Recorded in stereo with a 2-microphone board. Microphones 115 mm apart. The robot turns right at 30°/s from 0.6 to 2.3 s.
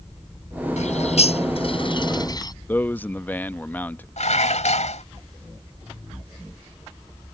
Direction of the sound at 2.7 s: 15° left (ahead or behind).